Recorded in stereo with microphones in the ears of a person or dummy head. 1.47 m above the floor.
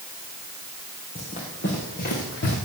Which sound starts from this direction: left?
Running footsteps, at 1.1 s.